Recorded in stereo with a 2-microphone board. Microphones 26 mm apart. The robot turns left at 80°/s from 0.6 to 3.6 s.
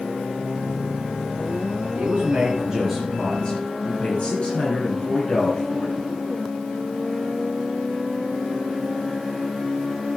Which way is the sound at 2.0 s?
95° right.